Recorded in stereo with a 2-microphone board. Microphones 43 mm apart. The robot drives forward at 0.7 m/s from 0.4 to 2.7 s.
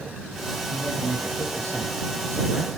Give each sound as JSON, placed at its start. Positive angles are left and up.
{"t": 0.7, "sound": "a man speaking", "side_deg": -70, "distance_m": 5.0}